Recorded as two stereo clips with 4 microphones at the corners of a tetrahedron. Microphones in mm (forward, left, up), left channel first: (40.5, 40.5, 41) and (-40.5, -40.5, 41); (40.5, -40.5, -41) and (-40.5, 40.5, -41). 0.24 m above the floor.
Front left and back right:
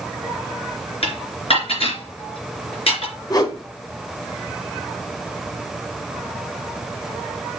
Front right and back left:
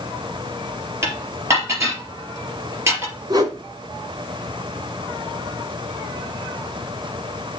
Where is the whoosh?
90° left, 1.7 m.